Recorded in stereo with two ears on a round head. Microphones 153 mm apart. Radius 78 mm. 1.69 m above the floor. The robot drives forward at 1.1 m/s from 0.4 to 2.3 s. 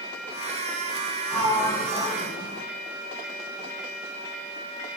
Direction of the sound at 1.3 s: 10° left (ahead or behind).